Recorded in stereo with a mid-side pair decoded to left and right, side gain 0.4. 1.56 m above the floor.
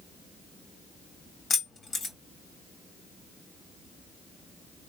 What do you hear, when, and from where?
1.5 s keys jangling: 55° left, 1.8 m